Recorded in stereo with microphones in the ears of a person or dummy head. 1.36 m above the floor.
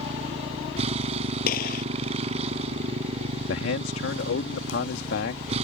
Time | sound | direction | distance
0.0 | a motorcycle | 35° right (ahead or behind) | ?
1.5 | a gunshot | 60° left (ahead or behind) | ?
3.5 | a man speaking | 80° left | ?